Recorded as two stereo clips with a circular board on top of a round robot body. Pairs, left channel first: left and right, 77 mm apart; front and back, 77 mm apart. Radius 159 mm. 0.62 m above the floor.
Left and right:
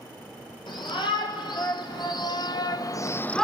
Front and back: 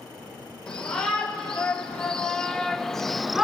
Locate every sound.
0.7 s a shout: 80° left, 3 m; by 3.5 s 150° left, 0.6 m